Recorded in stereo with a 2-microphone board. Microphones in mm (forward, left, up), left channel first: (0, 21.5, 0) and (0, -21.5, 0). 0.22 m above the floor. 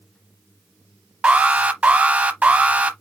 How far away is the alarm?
About 0.7 m.